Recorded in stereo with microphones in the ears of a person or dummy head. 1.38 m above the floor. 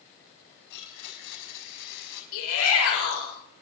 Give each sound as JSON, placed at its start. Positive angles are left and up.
{"t": 0.7, "sound": "a blender", "side_deg": 65, "distance_m": 4.5}
{"t": 2.3, "sound": "a shout", "side_deg": 70, "distance_m": 6.5}